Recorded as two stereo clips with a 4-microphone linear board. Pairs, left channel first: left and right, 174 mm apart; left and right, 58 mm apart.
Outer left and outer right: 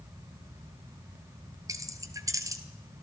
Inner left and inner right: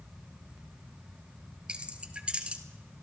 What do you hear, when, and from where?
1.7 s keys jangling: 20° right (ahead or behind), 1.1 m